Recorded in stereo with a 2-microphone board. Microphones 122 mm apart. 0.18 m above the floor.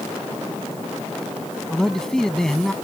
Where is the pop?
No pop in this recording.